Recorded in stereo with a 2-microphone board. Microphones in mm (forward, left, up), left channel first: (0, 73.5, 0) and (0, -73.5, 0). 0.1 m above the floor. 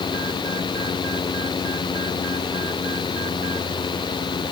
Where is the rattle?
I don't hear a rattle.